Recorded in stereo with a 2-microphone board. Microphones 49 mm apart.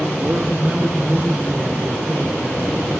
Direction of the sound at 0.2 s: 40° right (ahead or behind).